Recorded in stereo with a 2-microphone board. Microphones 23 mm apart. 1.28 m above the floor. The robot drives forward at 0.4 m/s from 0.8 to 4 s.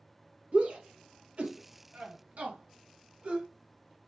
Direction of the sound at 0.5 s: 70° right (ahead or behind).